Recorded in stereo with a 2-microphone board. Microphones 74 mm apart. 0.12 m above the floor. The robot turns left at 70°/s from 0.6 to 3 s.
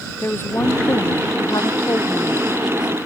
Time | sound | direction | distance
0.2 | a woman speaking | 145° left | ?